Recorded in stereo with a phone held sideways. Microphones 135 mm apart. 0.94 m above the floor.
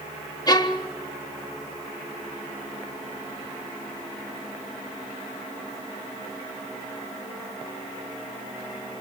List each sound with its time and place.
0.5 s a violin: 30° left (ahead or behind), 1.2 m